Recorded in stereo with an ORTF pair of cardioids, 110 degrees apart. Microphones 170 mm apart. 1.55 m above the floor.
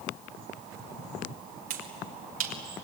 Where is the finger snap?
55° right, 4 m.